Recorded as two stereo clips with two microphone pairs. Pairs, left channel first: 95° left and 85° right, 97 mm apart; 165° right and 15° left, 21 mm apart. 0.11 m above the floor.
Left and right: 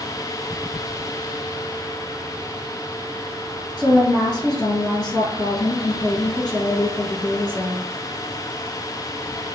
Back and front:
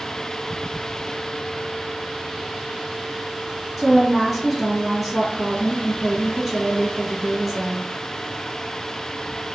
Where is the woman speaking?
105° left, 1.8 m.